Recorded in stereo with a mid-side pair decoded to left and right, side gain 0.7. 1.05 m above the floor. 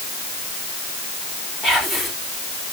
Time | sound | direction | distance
1.6 | whispering | 15° left | 3.5 m